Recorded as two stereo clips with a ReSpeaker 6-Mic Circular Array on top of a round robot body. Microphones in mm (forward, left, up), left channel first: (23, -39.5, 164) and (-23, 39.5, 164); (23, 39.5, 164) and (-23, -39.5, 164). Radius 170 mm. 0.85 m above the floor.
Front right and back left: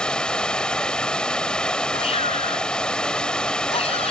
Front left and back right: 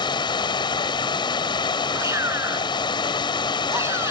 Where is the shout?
60° right.